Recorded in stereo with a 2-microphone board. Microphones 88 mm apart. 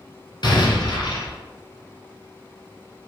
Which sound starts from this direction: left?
An explosion, at 0.4 s.